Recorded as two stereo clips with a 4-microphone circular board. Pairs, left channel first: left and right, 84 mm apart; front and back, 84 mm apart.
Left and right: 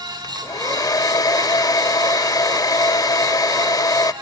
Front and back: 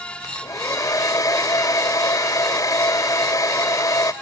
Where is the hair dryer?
50° left, 0.5 m.